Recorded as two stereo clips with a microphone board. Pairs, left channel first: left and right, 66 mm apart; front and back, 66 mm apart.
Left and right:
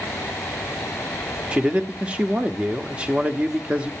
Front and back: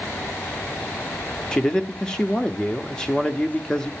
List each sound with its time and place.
1.5 s a man speaking: 55° right, 0.8 m